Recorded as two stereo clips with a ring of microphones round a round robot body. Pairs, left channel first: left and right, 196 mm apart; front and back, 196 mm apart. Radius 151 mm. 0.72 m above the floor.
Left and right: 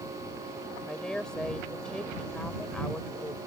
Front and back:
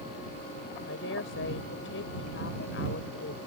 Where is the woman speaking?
5° left.